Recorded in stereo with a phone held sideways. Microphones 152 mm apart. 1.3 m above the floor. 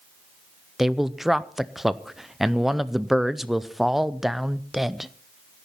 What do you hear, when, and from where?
0.8 s a man speaking: centre (ahead or behind), 0.5 m